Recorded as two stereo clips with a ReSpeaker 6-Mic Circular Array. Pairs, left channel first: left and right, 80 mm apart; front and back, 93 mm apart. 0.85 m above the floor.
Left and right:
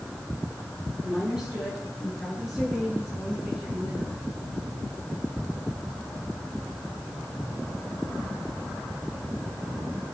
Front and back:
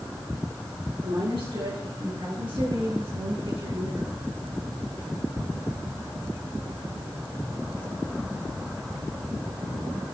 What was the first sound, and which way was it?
A woman speaking, 165° right.